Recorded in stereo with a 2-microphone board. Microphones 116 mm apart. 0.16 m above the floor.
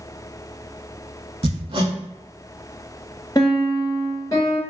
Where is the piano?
35° left (ahead or behind), 1.0 m.